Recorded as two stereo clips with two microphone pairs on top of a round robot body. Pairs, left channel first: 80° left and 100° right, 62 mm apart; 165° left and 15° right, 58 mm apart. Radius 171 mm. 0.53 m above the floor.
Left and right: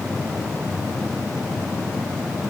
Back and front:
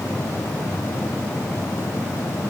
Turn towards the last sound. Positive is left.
No sound to turn to.